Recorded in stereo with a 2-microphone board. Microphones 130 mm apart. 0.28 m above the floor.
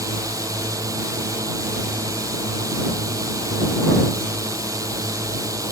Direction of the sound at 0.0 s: 25° right (ahead or behind).